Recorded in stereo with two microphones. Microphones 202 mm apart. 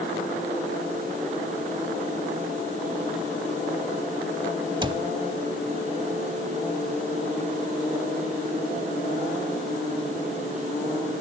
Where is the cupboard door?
25° right (ahead or behind), 0.5 m.